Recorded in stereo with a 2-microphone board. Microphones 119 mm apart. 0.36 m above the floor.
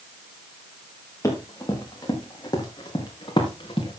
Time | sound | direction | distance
1.2 | running footsteps | 25° left (ahead or behind) | 6 m